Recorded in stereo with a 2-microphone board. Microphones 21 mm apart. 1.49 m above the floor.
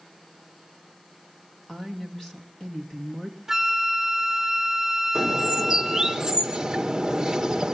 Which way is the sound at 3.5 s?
15° right (ahead or behind).